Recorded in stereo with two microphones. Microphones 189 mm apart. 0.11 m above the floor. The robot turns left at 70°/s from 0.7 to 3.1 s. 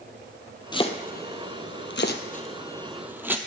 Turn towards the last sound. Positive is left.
turn(degrees=-10)  # may be behind; listen again after turning